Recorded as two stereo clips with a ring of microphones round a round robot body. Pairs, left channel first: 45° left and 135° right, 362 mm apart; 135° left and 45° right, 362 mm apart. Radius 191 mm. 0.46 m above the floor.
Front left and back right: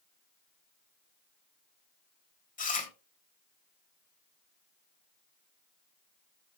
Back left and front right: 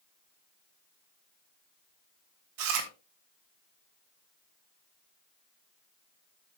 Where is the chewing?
20° right, 3 m.